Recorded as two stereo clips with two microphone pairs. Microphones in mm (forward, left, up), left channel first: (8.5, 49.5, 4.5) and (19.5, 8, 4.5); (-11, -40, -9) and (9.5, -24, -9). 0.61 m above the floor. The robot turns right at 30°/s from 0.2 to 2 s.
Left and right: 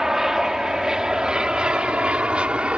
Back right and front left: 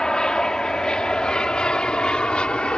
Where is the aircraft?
140° right; by 2.8 s 125° right.